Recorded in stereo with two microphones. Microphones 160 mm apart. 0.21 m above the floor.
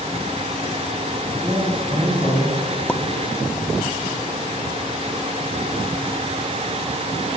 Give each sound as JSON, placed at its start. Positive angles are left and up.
{"t": 1.4, "sound": "a man speaking", "side_deg": -25, "distance_m": 4.0}
{"t": 2.9, "sound": "a pop", "side_deg": 10, "distance_m": 0.5}